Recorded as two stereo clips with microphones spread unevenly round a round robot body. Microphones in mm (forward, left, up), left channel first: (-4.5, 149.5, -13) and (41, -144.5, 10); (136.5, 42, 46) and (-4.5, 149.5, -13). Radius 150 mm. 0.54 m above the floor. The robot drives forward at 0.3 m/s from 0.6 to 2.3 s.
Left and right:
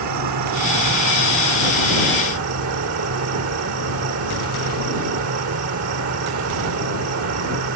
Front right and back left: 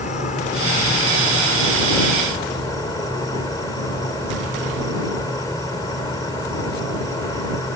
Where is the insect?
105° right; by 7.8 s 125° right.